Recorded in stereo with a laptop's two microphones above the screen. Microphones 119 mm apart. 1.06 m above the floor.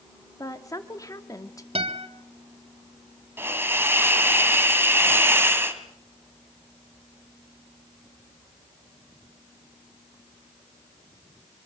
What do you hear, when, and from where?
0.4 s a woman speaking: 30° left (ahead or behind), 2.5 m
1.8 s a guitar: 55° right (ahead or behind), 2.5 m
3.4 s a hiss: 20° right (ahead or behind), 1.6 m